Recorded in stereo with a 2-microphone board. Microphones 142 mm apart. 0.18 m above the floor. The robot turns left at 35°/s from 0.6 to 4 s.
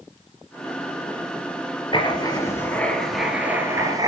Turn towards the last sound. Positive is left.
turn(degrees=-30)